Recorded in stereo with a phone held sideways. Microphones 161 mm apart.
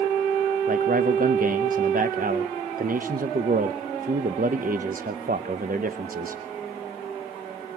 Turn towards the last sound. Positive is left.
turn(degrees=-60)  # may be behind; listen again after turning